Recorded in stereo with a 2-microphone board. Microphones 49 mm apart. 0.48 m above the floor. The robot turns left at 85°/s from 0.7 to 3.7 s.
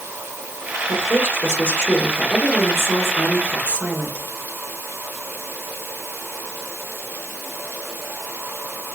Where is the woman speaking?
100° left, 1.3 m; by 4.2 s 140° right, 1.3 m.